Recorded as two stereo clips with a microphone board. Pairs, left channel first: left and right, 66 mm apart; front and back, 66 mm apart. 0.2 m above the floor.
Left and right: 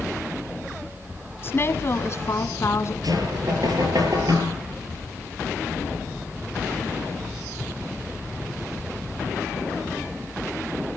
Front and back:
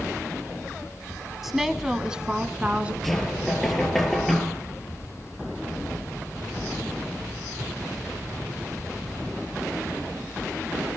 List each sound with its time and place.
1.4 s a woman speaking: 95° left, 1.7 m; by 2.9 s 115° left, 2.5 m
3.0 s knocking: 85° right, 4.5 m